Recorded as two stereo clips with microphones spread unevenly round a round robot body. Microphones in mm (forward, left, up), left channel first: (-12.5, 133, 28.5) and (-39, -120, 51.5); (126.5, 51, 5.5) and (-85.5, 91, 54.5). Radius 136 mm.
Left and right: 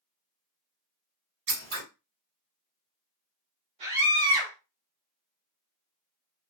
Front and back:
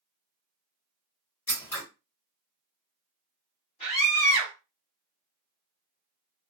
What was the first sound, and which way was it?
Scissors, 80° right.